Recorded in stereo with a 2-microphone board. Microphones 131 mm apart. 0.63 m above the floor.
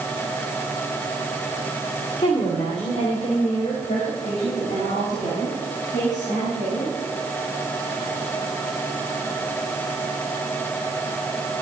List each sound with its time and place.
2.2 s a woman speaking: 55° left (ahead or behind), 2 m; by 7.0 s 75° left (ahead or behind), 4.5 m